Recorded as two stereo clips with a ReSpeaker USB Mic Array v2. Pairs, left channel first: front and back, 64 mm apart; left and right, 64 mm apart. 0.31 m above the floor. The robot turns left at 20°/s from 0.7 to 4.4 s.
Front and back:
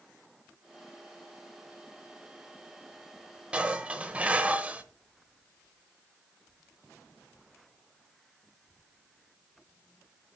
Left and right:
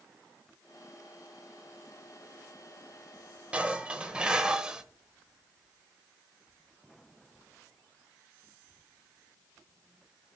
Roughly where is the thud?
I don't hear a thud.